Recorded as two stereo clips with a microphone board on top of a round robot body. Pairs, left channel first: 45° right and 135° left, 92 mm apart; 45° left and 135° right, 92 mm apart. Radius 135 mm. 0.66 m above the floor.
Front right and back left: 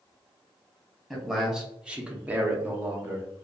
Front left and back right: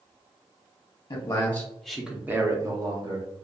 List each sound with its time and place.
1.1 s a man speaking: 40° left, 0.8 m; by 3.3 s 160° right, 1.1 m